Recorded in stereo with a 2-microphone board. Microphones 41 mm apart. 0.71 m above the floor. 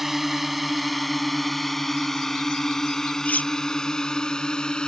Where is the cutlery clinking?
40° left (ahead or behind).